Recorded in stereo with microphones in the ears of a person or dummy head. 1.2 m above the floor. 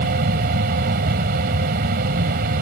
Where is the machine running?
55° right (ahead or behind).